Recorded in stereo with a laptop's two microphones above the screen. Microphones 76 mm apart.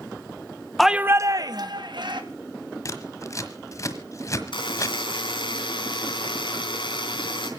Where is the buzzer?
85° left, 3.5 m.